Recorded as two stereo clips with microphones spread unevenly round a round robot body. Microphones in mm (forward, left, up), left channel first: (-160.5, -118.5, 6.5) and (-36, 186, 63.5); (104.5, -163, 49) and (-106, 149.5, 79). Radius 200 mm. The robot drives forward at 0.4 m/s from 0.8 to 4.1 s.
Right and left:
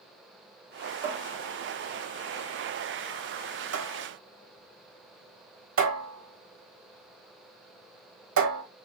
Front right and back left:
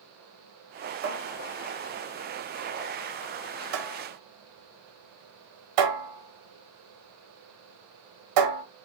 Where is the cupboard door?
60° left, 1.4 m; by 8.6 s 120° left, 1.4 m.